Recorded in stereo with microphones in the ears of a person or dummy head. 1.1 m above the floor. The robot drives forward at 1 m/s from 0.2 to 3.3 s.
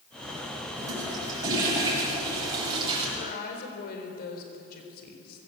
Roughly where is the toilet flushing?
Centre.